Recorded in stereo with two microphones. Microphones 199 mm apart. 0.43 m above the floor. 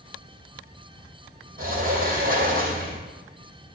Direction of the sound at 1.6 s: 45° right (ahead or behind).